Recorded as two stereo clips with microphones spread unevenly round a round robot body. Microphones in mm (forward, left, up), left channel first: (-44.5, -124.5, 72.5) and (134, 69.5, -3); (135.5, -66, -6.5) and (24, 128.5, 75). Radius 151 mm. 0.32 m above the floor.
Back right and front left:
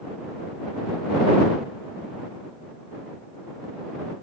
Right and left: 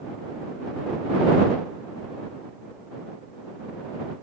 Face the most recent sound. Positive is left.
No sound to turn to.